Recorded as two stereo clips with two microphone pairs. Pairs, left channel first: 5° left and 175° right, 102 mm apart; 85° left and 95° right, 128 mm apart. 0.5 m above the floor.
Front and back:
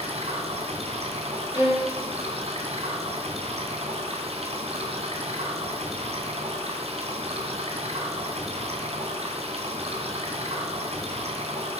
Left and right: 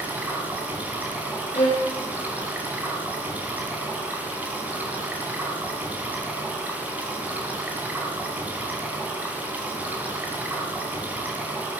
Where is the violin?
125° left, 5.5 m.